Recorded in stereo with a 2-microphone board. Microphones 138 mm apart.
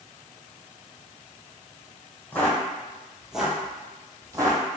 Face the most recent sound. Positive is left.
turn(degrees=-25)  # may be behind; listen again after turning